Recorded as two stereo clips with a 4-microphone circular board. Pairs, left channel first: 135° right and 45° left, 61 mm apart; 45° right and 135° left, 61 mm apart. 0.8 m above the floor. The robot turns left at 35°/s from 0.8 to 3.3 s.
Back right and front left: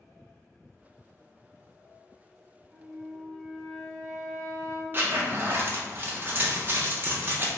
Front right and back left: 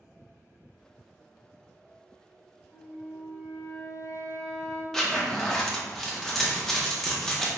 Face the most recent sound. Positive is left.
turn(degrees=30)